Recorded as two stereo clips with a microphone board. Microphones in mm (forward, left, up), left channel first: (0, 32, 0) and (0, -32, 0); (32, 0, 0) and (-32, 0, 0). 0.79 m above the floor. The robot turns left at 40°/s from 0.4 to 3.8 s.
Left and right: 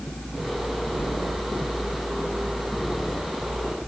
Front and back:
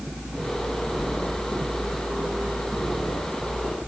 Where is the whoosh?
150° left, 1.1 m; by 1.2 s 140° left, 1.1 m.